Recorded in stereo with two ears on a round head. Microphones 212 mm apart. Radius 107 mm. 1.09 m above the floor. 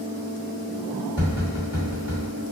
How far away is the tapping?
About 1.6 m.